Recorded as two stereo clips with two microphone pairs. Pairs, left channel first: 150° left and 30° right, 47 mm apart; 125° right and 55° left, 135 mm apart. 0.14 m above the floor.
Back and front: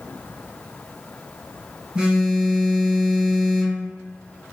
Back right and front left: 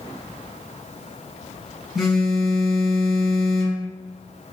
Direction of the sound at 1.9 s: 40° right.